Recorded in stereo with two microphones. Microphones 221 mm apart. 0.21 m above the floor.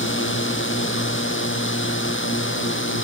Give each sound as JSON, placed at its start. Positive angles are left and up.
{"t": 0.0, "sound": "a drone", "side_deg": 70}